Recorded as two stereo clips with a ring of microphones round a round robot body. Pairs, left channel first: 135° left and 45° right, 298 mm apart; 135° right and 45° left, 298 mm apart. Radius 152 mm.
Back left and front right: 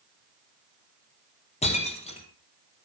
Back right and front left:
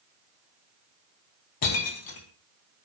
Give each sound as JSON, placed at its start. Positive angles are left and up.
{"t": 1.6, "sound": "breaking glass", "azimuth_deg": -155, "distance_m": 3.5}